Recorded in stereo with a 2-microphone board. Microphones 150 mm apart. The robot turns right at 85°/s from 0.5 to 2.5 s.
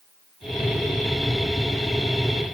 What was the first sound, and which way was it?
Only background noise.